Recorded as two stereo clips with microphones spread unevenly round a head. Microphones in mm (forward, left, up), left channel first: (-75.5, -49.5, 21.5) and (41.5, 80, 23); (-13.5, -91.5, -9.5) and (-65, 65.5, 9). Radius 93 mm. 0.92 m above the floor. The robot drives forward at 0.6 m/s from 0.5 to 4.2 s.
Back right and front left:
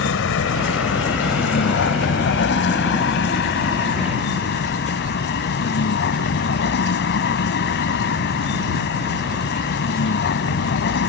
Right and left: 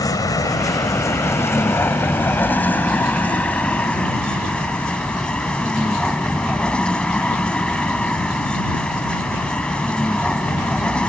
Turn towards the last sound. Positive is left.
turn(degrees=-155)